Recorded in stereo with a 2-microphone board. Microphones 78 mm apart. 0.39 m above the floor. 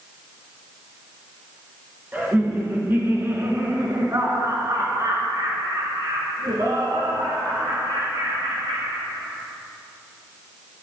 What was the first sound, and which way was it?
Laughter, 20° right (ahead or behind).